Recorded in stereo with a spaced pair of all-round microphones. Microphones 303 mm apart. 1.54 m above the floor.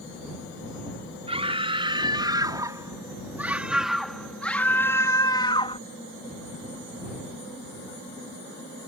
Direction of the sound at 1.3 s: 20° right (ahead or behind).